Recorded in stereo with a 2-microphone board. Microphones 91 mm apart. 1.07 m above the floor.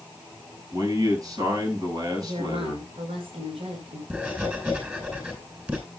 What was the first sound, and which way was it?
A man speaking, 45° right (ahead or behind).